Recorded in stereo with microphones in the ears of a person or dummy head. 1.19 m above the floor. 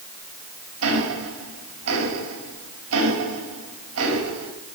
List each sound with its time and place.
0.8 s ticking: 85° right, 2.5 m